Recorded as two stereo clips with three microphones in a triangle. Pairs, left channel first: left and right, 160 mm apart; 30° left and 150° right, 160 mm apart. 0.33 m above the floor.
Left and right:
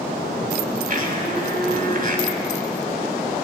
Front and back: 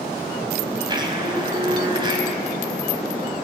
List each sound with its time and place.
0.9 s a blender: 95° right, 2.0 m